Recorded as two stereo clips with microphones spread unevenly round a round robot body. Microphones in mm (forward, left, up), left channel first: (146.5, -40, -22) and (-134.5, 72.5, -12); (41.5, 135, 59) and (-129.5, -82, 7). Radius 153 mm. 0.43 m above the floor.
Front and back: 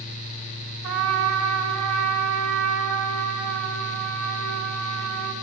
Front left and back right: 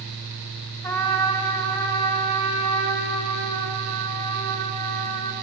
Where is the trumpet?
135° left, 3 m.